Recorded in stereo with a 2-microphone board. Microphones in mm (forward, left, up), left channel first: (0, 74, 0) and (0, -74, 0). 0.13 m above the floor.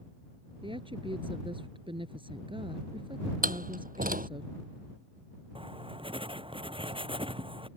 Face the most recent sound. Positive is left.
turn(degrees=-35)  # may be behind; listen again after turning